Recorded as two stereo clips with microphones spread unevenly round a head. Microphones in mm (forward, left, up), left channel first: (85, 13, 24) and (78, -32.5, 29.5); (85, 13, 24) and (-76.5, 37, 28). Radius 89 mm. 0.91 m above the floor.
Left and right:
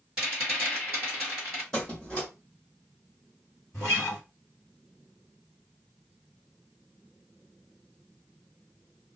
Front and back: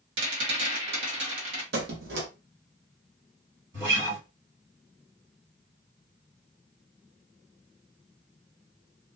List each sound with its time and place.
0.2 s a rattle: 175° left, 1.4 m
1.7 s a squeak: 170° left, 0.9 m
3.7 s a guitar: 160° left, 1.8 m